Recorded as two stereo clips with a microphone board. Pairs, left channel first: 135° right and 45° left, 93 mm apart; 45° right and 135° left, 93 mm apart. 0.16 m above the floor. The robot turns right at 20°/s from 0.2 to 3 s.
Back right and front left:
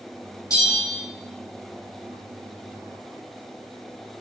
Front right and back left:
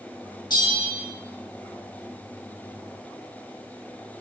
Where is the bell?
90° right, 1.7 m; by 1.0 s 75° right, 1.7 m.